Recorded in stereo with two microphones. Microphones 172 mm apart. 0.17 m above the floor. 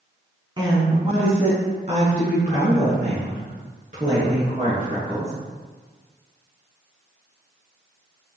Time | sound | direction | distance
0.6 | a woman speaking | 25° right (ahead or behind) | 1.5 m